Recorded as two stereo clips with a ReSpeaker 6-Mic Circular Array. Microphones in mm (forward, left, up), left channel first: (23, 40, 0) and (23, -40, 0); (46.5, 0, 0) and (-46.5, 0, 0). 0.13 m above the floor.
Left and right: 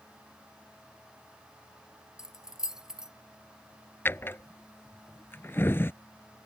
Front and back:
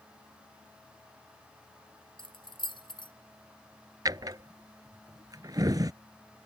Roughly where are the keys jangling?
Ahead.